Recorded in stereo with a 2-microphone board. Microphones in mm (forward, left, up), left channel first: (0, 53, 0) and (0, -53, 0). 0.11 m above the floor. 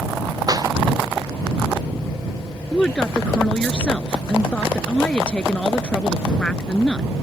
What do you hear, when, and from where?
0.5 s a clap: 40° right (ahead or behind)
2.7 s a woman speaking: 10° left (ahead or behind)